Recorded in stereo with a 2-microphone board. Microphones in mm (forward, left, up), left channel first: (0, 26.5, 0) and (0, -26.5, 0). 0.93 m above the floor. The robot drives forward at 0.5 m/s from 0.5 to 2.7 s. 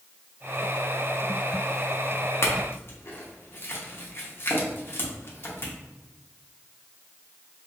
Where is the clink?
50° left (ahead or behind), 0.6 m; by 5.7 s 45° left (ahead or behind), 0.7 m.